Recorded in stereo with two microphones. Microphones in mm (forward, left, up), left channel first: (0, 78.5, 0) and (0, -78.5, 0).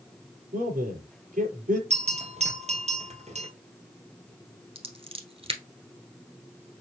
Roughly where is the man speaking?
Right.